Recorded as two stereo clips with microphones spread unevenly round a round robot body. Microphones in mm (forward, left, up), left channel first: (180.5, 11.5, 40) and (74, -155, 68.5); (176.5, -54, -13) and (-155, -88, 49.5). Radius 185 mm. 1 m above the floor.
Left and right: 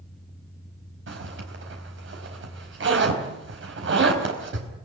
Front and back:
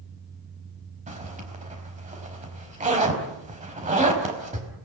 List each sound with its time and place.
1.1 s a zipper: 105° right, 4.5 m